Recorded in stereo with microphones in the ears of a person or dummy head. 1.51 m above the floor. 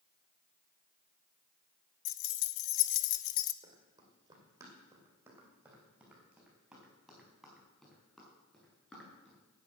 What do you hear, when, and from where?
2.0 s keys jangling: 60° left (ahead or behind), 0.6 m
3.6 s running footsteps: 30° right (ahead or behind), 3.5 m; by 9.4 s 5° left (ahead or behind), 6.5 m